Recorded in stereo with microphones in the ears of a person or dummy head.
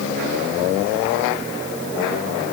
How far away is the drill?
No drill in this recording.